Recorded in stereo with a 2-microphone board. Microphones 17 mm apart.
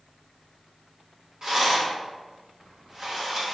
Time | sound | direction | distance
1.4 | a rattle | 35° right (ahead or behind) | 1.1 m